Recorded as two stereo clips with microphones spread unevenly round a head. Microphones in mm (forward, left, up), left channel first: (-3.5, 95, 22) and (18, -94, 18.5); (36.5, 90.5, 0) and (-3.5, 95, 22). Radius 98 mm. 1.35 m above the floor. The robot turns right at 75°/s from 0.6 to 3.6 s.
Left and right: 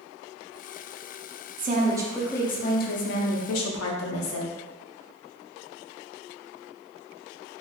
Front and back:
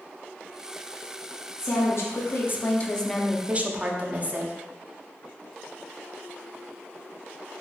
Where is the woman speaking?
40° right, 0.6 m; by 4.5 s 115° left, 0.6 m.